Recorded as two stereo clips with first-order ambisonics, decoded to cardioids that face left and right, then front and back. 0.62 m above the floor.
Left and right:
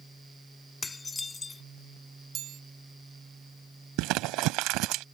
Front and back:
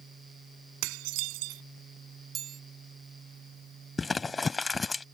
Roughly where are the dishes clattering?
Behind.